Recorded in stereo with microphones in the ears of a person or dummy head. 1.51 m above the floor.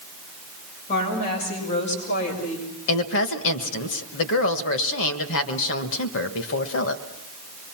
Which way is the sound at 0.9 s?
45° left (ahead or behind).